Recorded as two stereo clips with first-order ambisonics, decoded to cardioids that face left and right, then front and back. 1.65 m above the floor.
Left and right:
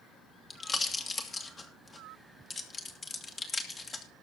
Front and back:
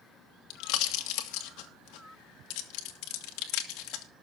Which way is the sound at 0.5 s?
20° left.